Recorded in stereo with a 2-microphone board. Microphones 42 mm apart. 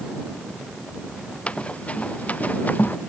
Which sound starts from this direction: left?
Running footsteps, at 1.5 s.